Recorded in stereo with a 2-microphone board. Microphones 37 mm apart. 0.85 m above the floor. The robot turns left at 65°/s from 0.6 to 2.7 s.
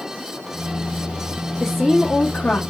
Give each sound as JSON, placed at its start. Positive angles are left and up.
{"t": 1.6, "sound": "a woman speaking", "azimuth_deg": -170, "distance_m": 0.8}